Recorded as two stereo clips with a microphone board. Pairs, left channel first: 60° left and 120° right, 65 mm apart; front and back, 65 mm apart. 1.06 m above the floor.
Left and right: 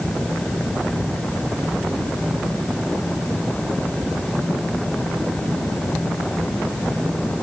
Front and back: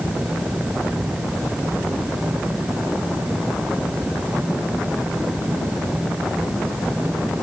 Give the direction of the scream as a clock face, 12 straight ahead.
No scream in this recording.